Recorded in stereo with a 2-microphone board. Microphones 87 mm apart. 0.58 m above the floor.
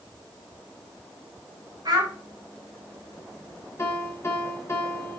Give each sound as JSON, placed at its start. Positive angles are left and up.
{"t": 1.9, "sound": "a child speaking", "side_deg": -45, "distance_m": 1.9}
{"t": 3.8, "sound": "a piano", "side_deg": 30, "distance_m": 0.8}